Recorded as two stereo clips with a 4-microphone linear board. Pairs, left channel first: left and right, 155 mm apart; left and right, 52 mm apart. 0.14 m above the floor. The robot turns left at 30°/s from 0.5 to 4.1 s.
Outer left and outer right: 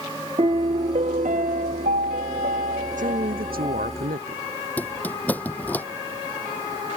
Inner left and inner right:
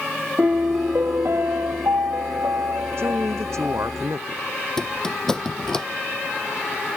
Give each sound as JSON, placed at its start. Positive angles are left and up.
{"t": 0.4, "sound": "a piano", "azimuth_deg": -40}
{"t": 3.0, "sound": "a man speaking", "azimuth_deg": -60}
{"t": 4.8, "sound": "a squeak", "side_deg": 10}